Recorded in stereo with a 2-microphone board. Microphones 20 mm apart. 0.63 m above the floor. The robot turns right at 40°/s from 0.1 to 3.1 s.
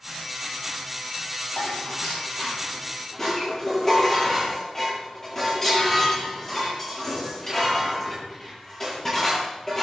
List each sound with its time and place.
1.6 s dishes clattering: 95° left, 9 m; by 9.8 s 160° left, 9 m